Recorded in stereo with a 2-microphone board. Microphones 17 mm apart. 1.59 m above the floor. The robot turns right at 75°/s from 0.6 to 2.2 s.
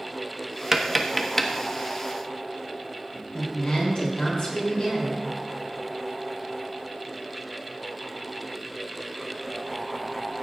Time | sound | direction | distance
0.7 | tapping | 25° right (ahead or behind) | 1.3 m
3.3 | a woman speaking | 70° left (ahead or behind) | 7 m